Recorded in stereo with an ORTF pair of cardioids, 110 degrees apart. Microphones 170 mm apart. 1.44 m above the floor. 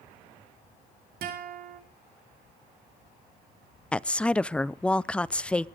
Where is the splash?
No splash in this recording.